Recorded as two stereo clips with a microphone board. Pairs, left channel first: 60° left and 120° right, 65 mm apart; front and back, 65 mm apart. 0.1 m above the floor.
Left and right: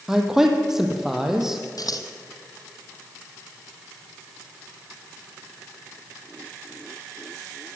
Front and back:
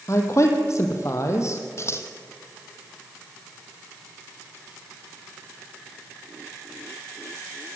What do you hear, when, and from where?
0.1 s a man speaking: 35° right, 4 m
1.8 s scissors: 40° left, 2.5 m